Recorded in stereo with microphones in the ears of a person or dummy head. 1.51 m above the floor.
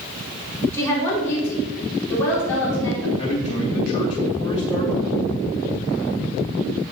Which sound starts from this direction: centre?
A woman speaking, at 0.7 s.